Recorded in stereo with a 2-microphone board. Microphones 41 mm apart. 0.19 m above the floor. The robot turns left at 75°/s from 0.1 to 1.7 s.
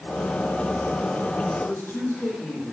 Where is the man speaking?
65° left (ahead or behind), 7 m; by 2.7 s 75° left (ahead or behind), 7 m.